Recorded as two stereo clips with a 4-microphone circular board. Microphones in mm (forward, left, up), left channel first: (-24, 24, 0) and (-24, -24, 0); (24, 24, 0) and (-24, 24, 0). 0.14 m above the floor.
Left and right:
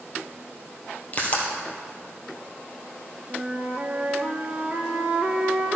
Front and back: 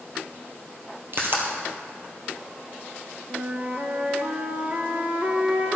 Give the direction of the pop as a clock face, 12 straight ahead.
7 o'clock.